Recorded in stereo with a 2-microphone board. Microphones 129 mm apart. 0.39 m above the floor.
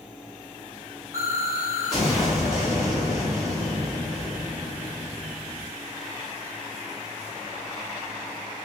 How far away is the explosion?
About 3 m.